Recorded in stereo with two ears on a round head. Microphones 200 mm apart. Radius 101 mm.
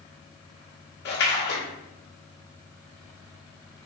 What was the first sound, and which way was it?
A splash, 50° left (ahead or behind).